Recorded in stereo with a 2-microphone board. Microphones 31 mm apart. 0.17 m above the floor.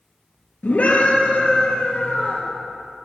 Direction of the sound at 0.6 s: 60° left (ahead or behind).